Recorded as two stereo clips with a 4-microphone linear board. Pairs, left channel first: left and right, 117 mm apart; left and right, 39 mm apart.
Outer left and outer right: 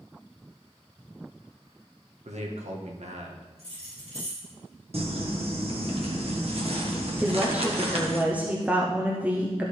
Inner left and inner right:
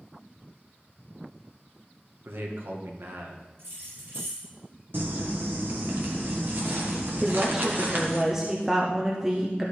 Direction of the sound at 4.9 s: 60° right (ahead or behind).